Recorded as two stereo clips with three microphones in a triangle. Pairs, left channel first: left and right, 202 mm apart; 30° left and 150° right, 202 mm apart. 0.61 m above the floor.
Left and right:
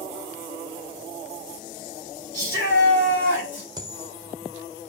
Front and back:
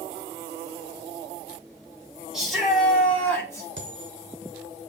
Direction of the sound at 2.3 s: 120° left.